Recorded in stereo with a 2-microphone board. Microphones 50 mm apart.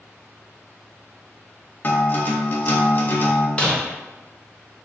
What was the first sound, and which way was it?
A guitar, 40° left (ahead or behind).